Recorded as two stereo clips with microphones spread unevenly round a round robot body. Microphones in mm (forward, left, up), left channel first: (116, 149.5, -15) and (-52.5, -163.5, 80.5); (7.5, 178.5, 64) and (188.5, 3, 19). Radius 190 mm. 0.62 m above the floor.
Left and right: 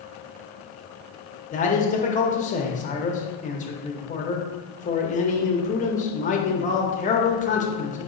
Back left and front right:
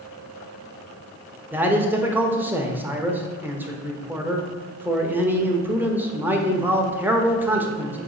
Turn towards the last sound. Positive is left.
turn(degrees=25)